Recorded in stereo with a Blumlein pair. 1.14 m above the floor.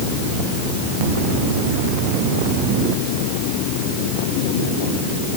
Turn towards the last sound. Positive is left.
No sound to turn to.